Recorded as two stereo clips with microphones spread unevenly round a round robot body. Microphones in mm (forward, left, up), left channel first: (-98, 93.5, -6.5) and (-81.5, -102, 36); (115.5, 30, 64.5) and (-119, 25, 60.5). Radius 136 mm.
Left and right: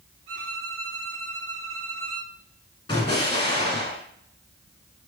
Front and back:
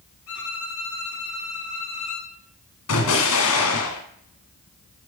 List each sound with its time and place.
0.3 s a violin: 30° right, 3.5 m
2.9 s an explosion: 20° left, 2 m